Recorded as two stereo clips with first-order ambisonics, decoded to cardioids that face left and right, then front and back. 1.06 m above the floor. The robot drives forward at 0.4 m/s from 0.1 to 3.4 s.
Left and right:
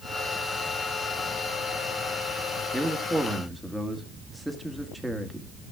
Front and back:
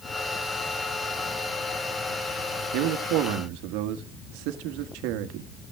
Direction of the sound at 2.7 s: Straight behind.